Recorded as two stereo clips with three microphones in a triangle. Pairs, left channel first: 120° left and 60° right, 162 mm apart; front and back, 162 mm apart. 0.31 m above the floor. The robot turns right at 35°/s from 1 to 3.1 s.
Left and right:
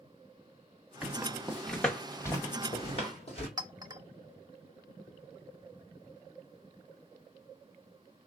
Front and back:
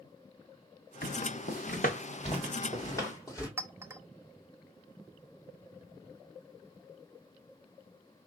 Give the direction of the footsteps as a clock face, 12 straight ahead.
11 o'clock.